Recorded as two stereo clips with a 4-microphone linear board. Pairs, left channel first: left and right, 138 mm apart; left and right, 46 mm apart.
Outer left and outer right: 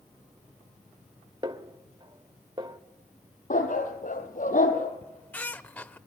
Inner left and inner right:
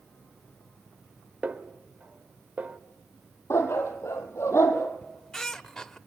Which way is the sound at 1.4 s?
35° right (ahead or behind).